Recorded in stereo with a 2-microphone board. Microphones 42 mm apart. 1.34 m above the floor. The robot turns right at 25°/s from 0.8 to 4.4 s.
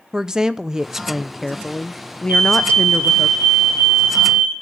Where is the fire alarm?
115° right, 3 m; by 4.5 s 60° right, 3 m.